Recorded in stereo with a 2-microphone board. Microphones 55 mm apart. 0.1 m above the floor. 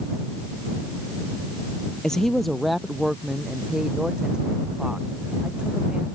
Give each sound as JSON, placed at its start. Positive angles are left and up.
{"t": 2.0, "sound": "a woman speaking", "side_deg": 10}